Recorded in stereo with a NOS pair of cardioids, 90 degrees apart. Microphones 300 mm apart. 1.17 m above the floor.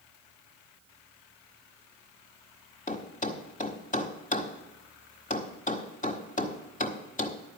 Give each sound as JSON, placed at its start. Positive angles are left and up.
{"t": 2.9, "sound": "a thud", "azimuth_deg": 30, "distance_m": 1.4}